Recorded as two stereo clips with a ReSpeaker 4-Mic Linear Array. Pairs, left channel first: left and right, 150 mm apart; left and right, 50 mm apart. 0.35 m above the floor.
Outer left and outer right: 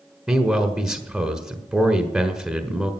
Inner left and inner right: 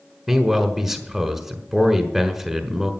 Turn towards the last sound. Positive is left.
turn(degrees=-5)  # may be behind; listen again after turning